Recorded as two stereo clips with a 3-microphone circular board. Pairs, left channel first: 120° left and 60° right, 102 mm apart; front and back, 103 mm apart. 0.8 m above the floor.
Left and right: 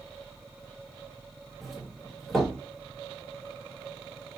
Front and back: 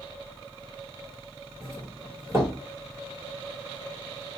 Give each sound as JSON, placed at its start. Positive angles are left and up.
{"t": 1.6, "sound": "a doorbell", "azimuth_deg": -150, "distance_m": 1.3}